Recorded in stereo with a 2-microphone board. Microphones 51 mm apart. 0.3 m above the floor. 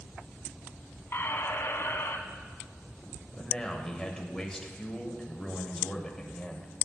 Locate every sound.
1.1 s a squeak: 60° left (ahead or behind), 0.6 m
3.4 s a man speaking: 10° left (ahead or behind), 0.9 m